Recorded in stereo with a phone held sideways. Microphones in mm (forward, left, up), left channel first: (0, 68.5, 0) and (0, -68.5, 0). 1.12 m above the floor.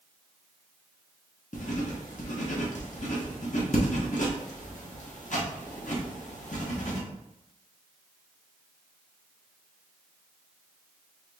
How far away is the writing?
About 0.9 m.